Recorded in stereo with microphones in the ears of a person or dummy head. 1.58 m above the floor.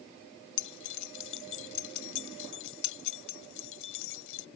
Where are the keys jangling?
80° left.